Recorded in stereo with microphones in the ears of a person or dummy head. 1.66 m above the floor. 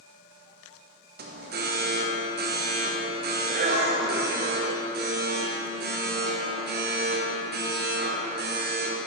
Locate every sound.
1.2 s an alarm: 45° right (ahead or behind), 1.0 m